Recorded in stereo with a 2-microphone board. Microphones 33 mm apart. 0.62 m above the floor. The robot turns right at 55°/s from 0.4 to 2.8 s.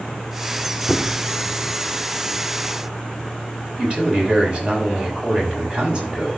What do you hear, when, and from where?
0.9 s a squeak: 20° left (ahead or behind), 0.8 m; by 1.3 s 35° left (ahead or behind), 0.8 m
3.8 s a man speaking: 30° right (ahead or behind), 5 m